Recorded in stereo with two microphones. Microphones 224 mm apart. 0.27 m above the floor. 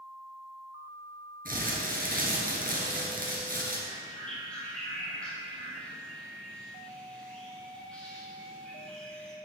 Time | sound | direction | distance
1.4 | crumpling | 40° right (ahead or behind) | 2.5 m
3.9 | a bird | 5° left (ahead or behind) | 4.5 m